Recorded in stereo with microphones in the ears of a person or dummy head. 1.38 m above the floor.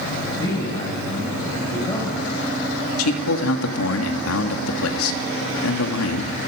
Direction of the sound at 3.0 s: 85° left.